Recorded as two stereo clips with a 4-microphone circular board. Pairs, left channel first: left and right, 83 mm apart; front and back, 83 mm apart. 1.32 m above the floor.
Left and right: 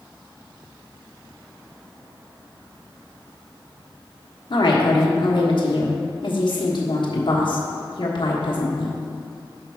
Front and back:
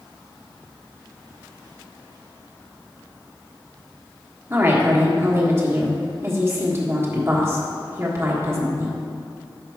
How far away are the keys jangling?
No keys jangling in this recording.